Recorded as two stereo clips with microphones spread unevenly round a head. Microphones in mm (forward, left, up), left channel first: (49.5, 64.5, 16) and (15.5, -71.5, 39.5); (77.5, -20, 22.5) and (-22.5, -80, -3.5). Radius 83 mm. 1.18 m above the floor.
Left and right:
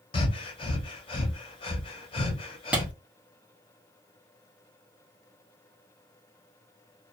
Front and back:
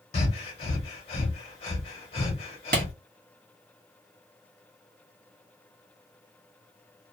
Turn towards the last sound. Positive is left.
turn(degrees=175)